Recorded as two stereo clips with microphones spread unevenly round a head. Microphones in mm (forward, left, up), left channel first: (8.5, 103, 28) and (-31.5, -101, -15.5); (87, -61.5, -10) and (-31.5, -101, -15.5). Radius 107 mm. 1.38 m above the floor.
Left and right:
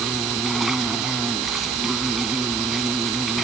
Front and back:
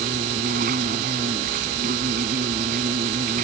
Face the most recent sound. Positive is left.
turn(degrees=170)